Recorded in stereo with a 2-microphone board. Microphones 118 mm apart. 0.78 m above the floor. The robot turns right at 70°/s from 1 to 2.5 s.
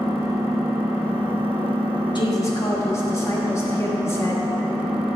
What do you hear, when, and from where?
0.0 s an engine running: 110° right, 3 m; by 5.2 s 5° right, 3 m
2.1 s a woman speaking: 45° left (ahead or behind), 1.3 m; by 4.5 s 25° left (ahead or behind), 1.3 m